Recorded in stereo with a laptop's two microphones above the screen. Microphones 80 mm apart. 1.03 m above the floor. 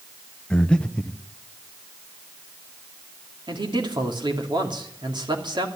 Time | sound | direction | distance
0.5 | breathing | 10° left (ahead or behind) | 0.7 m
3.5 | a man speaking | 70° right (ahead or behind) | 2.5 m